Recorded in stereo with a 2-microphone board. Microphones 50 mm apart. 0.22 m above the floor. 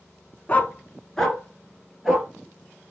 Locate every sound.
0.5 s a dog barking: 35° left (ahead or behind), 0.8 m; by 2.3 s 5° right (ahead or behind), 1.9 m